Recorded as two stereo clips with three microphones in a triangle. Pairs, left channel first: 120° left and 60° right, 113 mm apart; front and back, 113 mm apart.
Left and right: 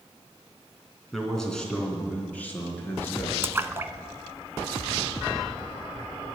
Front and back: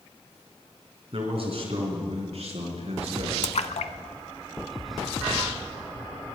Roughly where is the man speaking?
Behind right.